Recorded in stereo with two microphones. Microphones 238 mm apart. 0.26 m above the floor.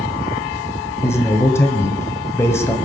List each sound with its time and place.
1.0 s a man speaking: 10° left (ahead or behind), 1.7 m